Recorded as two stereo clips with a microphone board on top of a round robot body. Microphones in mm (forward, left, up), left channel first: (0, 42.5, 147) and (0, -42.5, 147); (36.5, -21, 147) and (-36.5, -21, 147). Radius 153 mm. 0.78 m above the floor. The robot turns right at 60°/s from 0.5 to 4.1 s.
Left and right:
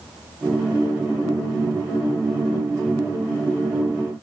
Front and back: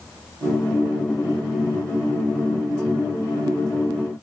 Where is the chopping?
I don't hear chopping.